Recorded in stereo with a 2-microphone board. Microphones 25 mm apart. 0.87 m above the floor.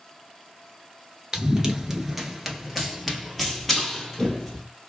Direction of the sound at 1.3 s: 25° right (ahead or behind).